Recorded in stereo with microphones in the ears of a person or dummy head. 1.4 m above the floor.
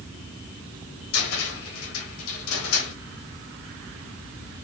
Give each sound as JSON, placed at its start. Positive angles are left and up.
{"t": 1.1, "sound": "a cupboard door", "side_deg": 85, "distance_m": 1.6}